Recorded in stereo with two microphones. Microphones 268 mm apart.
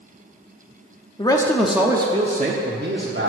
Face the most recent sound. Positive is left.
turn(degrees=-50)  # may be behind; listen again after turning